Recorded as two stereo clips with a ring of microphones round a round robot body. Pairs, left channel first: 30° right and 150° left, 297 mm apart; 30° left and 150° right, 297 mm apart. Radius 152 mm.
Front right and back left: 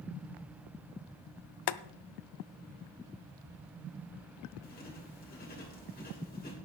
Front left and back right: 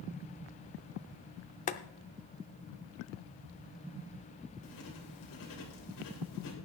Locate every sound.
1.7 s boiling: 40° right, 0.5 m
4.6 s writing: 30° left, 3 m